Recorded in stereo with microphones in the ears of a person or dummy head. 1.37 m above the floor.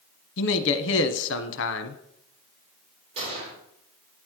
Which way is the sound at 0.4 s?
65° left (ahead or behind).